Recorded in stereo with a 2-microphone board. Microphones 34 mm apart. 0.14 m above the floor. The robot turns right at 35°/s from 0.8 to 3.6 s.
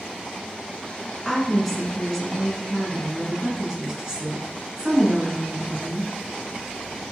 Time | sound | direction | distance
1.2 | a woman speaking | 10° left (ahead or behind) | 1.7 m